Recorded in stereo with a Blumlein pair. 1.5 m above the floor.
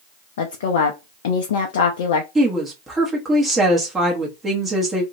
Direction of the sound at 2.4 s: 15° right.